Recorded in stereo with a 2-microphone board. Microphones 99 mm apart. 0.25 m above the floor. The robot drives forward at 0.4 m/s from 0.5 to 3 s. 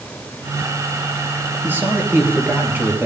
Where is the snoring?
I don't hear snoring.